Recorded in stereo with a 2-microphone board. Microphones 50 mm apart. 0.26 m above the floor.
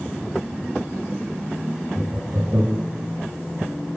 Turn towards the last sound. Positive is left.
turn(degrees=-65)  # may be behind; listen again after turning